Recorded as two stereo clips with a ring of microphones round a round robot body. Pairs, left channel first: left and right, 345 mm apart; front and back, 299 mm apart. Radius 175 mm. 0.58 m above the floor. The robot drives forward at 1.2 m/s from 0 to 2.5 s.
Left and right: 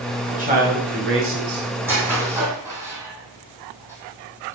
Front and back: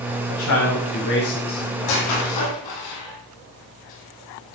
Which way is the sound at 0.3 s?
25° right.